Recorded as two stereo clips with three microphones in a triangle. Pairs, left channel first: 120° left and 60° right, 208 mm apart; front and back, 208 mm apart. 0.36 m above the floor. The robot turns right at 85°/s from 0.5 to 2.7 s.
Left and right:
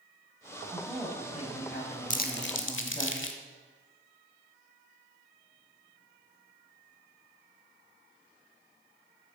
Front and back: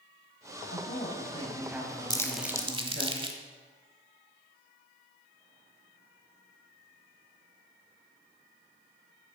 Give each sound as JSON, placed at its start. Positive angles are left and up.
{"t": 0.7, "sound": "a woman speaking", "azimuth_deg": 10, "distance_m": 2.5}
{"t": 2.1, "sound": "crumpling", "azimuth_deg": 65, "distance_m": 1.0}